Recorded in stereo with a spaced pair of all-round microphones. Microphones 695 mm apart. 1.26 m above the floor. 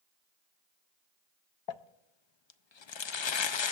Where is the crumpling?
45° left (ahead or behind), 0.5 m.